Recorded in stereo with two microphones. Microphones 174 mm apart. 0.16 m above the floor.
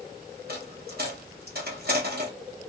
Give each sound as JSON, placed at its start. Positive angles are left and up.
{"t": 0.5, "sound": "a dropped coin", "side_deg": -65, "distance_m": 1.9}